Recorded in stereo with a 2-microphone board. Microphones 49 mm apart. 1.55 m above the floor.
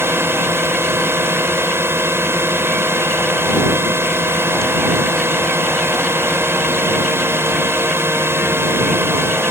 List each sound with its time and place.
0.0 s a drone: 55° right (ahead or behind)